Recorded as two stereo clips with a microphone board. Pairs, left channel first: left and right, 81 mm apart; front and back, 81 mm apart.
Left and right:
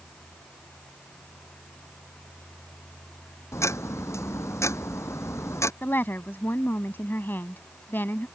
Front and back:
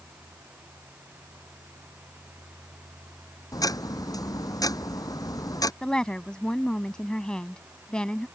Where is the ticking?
35° left.